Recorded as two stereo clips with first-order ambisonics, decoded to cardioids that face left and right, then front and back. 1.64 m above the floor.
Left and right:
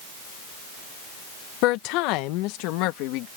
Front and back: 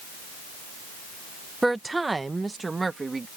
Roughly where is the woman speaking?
Left.